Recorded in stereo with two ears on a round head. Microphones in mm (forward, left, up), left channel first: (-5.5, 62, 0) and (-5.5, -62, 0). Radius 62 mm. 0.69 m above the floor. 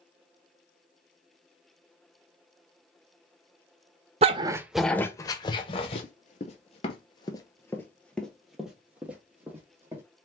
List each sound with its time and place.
4.2 s a dog barking: 45° right (ahead or behind), 0.5 m; by 6.0 s 40° left (ahead or behind), 1.1 m
6.0 s running footsteps: 55° left (ahead or behind), 1.1 m; by 10.0 s 15° right (ahead or behind), 1.9 m